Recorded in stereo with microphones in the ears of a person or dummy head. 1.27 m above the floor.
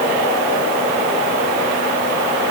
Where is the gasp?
I don't hear a gasp.